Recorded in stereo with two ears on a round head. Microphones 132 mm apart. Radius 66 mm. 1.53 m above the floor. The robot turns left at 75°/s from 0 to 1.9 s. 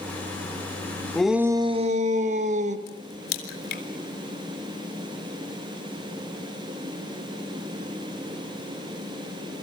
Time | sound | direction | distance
1.1 | a shout | 5° left | 2.5 m
2.9 | a crack | 75° left (ahead or behind) | 3.5 m